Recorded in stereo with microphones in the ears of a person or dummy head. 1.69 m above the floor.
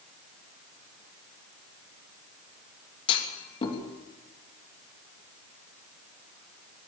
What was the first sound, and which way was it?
A clunk, 30° left (ahead or behind).